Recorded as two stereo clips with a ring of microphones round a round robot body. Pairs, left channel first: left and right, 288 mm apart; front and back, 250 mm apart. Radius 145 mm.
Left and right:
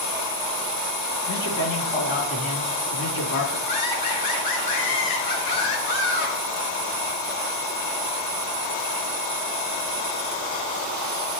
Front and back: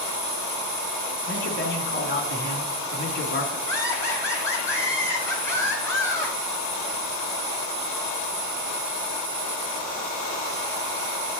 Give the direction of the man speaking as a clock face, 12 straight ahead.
11 o'clock.